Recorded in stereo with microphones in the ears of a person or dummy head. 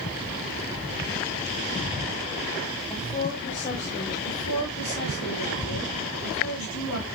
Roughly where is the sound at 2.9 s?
Left.